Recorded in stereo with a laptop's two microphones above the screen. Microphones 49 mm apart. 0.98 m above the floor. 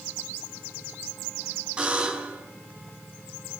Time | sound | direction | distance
1.8 | a buzzer | 20° right (ahead or behind) | 6 m